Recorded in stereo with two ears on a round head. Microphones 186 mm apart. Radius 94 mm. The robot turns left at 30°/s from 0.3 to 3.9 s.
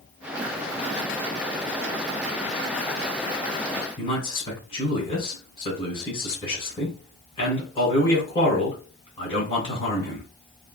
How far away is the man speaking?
About 2.0 m.